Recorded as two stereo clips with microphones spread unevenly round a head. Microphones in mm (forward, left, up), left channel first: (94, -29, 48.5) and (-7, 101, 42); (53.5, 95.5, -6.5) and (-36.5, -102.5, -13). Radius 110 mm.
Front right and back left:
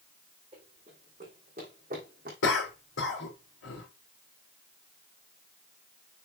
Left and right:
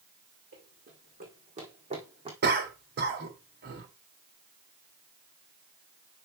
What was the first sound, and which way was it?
Running footsteps, 165° right.